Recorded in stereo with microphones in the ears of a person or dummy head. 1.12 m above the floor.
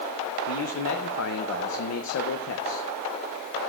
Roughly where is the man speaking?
Left.